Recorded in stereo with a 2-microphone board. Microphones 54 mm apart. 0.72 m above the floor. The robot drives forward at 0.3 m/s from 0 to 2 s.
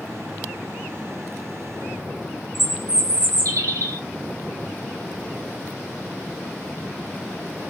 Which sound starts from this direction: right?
A bird, at 2.5 s.